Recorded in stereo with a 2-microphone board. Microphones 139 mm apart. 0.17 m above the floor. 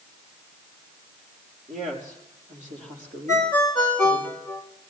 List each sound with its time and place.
1.7 s a woman speaking: 65° right (ahead or behind), 5 m; by 4.3 s 60° right (ahead or behind), 6 m
3.3 s a ringtone: 65° right (ahead or behind), 8.5 m